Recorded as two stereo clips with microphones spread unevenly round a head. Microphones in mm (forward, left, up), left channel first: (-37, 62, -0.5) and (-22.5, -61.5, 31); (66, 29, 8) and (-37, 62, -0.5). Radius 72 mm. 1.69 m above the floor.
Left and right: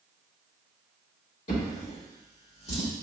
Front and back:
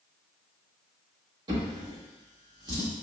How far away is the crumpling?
I don't hear crumpling.